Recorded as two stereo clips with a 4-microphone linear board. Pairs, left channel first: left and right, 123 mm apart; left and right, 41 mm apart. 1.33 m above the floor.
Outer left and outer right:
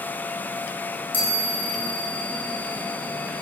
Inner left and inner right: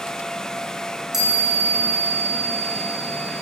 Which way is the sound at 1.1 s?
15° right (ahead or behind).